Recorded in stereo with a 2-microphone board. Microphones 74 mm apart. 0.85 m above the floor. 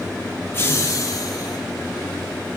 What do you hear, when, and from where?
0.5 s laughter: 35° left (ahead or behind), 1.5 m; by 1.6 s 60° left (ahead or behind), 3 m